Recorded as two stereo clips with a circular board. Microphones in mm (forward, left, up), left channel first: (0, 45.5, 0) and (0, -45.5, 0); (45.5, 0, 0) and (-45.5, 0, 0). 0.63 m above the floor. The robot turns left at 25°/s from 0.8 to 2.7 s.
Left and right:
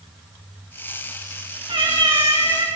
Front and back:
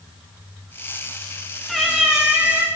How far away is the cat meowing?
About 2.5 m.